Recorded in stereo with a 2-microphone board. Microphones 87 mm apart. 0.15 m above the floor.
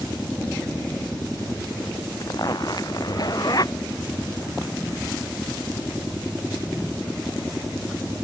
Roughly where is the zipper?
Left.